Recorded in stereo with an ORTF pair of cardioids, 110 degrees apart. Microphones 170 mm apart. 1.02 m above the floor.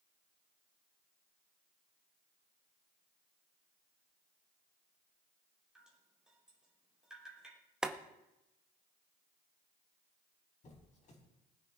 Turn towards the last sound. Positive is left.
turn(degrees=45)